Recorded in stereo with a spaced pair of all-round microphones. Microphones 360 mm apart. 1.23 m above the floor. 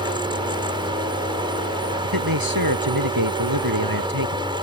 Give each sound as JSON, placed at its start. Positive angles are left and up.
{"t": 0.0, "sound": "a fan", "side_deg": -15}
{"t": 2.0, "sound": "a man speaking", "side_deg": -80}